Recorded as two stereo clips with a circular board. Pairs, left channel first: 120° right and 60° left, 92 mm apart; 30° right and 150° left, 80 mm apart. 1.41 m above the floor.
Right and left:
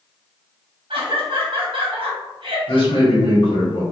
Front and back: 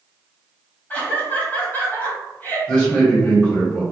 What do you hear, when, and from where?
0.9 s laughter: 40° left, 0.6 m
2.7 s a man speaking: 105° right, 1.3 m